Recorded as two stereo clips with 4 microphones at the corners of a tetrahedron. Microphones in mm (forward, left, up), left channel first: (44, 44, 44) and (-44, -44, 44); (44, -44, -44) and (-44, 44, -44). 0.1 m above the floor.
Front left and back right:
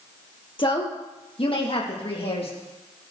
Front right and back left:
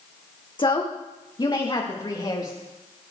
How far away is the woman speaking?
About 3 m.